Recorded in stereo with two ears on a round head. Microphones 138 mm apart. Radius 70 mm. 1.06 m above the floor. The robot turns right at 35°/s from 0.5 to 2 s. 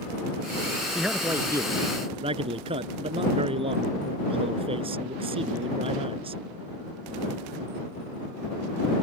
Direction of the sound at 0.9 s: Straight behind.